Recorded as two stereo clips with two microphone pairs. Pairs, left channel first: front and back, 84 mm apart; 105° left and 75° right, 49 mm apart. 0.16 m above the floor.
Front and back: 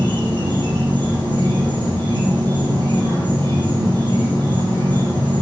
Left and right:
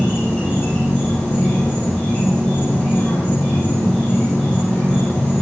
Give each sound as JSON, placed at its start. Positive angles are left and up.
{"t": 0.0, "sound": "an insect", "azimuth_deg": -170, "distance_m": 4.5}